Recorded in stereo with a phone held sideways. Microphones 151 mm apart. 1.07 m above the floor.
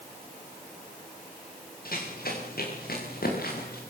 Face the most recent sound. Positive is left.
turn(degrees=80)